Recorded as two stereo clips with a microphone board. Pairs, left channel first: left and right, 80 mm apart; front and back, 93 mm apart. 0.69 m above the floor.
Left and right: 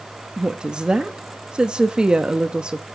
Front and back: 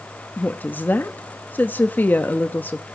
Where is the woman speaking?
30° right, 0.8 m.